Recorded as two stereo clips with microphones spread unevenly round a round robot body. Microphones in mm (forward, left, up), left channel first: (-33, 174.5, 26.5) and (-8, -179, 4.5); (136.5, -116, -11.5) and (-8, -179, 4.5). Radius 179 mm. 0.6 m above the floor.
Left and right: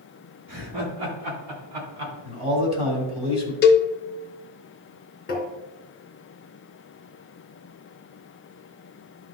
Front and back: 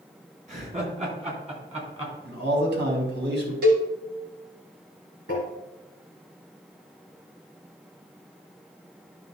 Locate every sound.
0.5 s laughter: 115° right, 4.5 m; by 2.1 s 100° right, 5 m
2.2 s a man speaking: 160° right, 3 m
3.6 s a cowbell: 155° left, 0.6 m
5.3 s tapping: 155° left, 2 m